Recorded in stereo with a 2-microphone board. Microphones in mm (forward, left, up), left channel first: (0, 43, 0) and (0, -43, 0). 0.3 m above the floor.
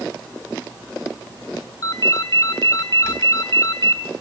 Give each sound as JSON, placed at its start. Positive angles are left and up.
{"t": 1.8, "sound": "a ringtone", "side_deg": 45, "distance_m": 2.0}